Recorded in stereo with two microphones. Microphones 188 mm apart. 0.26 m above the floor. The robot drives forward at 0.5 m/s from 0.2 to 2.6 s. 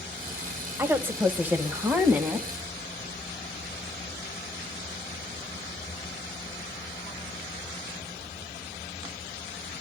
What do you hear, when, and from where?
0.8 s a woman speaking: 10° right (ahead or behind), 1.2 m